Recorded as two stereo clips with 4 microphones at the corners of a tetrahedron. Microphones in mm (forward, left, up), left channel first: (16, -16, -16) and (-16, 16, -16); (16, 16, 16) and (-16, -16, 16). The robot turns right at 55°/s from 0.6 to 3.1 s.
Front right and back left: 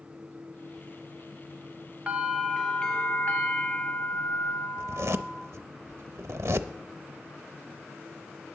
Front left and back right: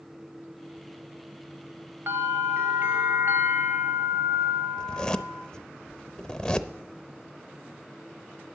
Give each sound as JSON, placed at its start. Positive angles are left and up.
{"t": 2.1, "sound": "a bell", "azimuth_deg": -160, "distance_m": 1.5}
{"t": 4.8, "sound": "a zipper", "azimuth_deg": 120, "distance_m": 0.5}